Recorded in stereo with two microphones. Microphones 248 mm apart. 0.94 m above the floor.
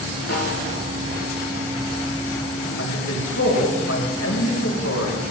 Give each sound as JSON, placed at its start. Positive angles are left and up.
{"t": 0.3, "sound": "a snare drum", "side_deg": 70, "distance_m": 7.5}
{"t": 2.8, "sound": "a man speaking", "side_deg": 85, "distance_m": 4.0}